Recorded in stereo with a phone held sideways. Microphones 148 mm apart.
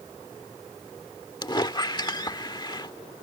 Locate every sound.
1.4 s a squeak: 30° left (ahead or behind)